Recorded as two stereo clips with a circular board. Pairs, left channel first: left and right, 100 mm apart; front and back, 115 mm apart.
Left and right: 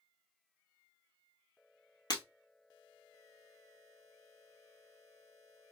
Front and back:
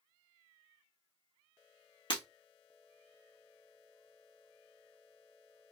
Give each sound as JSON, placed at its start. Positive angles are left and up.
{"t": 2.1, "sound": "breaking glass", "azimuth_deg": 45, "distance_m": 1.6}